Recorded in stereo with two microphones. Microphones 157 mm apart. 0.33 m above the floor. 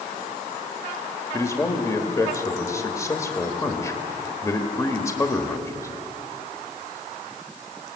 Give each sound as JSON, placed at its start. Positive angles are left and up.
{"t": 1.3, "sound": "a man speaking", "side_deg": 20, "distance_m": 1.3}